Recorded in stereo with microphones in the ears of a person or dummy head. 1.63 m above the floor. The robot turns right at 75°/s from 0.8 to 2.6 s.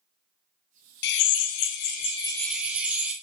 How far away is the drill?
About 1.0 m.